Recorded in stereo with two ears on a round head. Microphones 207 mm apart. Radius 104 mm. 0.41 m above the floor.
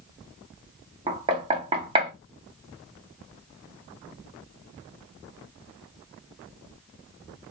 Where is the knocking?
25° right (ahead or behind), 0.7 m.